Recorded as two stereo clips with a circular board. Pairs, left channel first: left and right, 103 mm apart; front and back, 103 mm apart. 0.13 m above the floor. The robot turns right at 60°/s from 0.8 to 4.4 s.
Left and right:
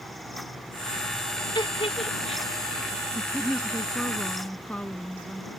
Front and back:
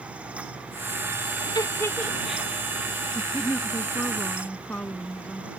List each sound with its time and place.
1.6 s a giggle: 45° left; by 2.5 s 100° left
3.1 s a woman speaking: 30° right; by 5.5 s 45° left